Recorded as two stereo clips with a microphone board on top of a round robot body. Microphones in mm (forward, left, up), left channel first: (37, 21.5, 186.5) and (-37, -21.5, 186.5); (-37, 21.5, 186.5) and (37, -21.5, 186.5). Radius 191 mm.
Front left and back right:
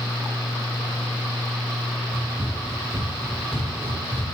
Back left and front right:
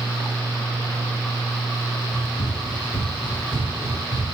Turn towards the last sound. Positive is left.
turn(degrees=105)